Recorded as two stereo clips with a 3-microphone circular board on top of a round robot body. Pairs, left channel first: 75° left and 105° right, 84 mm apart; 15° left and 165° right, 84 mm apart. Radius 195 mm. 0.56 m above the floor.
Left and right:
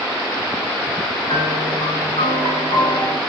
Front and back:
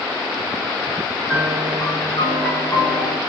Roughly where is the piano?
Ahead left.